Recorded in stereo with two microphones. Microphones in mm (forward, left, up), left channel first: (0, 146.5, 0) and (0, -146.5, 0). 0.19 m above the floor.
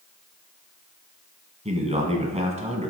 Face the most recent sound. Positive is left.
turn(degrees=-25)  # may be behind; listen again after turning